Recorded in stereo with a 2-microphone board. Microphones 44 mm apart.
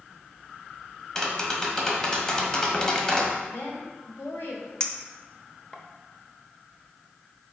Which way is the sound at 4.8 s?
15° left (ahead or behind).